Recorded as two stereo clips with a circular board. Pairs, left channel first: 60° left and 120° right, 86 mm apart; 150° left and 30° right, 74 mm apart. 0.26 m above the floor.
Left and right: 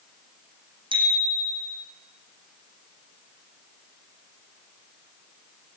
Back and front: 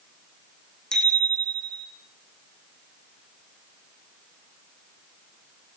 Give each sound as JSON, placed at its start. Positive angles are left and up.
{"t": 0.9, "sound": "a bicycle bell", "azimuth_deg": -130, "distance_m": 8.5}